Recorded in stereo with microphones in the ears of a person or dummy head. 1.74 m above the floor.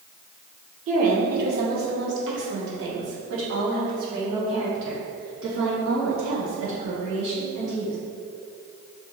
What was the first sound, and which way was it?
A woman speaking, 45° right (ahead or behind).